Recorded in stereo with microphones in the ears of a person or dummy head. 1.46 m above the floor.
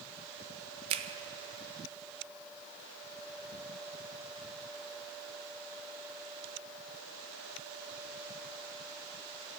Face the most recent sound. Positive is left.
turn(degrees=-30)  # may be behind; listen again after turning